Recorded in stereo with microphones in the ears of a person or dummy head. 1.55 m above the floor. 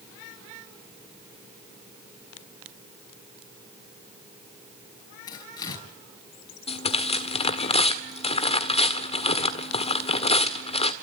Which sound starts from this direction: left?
Tearing paper, at 6.7 s.